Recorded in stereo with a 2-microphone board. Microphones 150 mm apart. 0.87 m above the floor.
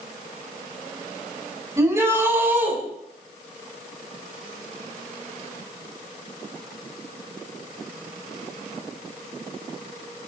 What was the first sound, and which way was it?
A shout, 20° right (ahead or behind).